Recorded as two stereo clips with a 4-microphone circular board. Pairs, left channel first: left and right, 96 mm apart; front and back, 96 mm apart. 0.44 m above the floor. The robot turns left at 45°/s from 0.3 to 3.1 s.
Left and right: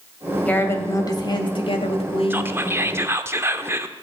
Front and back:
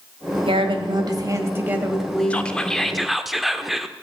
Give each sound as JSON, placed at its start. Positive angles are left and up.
{"t": 0.5, "sound": "a woman speaking", "azimuth_deg": 165, "distance_m": 1.8}
{"t": 2.3, "sound": "whispering", "azimuth_deg": -55, "distance_m": 0.8}